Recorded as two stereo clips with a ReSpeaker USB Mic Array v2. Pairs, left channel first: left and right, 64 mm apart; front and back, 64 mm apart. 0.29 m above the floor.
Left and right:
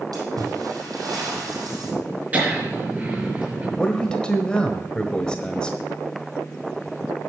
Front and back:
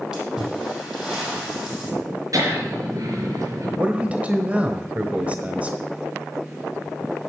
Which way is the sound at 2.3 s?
155° right.